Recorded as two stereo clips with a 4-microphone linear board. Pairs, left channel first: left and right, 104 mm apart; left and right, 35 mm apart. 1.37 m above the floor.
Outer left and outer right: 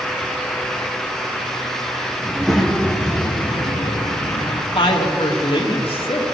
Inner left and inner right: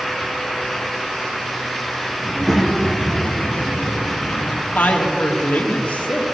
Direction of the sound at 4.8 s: 60° left (ahead or behind).